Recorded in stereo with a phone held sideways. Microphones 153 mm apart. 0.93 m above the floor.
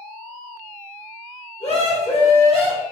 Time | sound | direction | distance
1.6 | a scream | 45° left (ahead or behind) | 4 m